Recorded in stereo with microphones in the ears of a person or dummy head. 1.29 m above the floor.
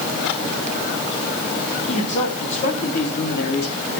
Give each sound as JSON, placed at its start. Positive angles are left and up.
{"t": 1.9, "sound": "a man speaking", "side_deg": 30, "distance_m": 3.5}